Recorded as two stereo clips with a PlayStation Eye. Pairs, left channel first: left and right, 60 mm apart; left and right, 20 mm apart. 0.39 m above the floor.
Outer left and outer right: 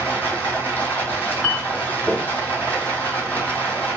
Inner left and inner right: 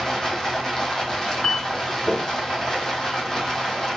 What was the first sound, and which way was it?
Running water, 30° left (ahead or behind).